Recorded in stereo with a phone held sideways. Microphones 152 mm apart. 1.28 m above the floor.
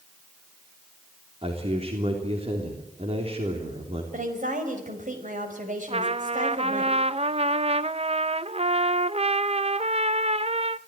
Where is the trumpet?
45° right (ahead or behind), 0.7 m.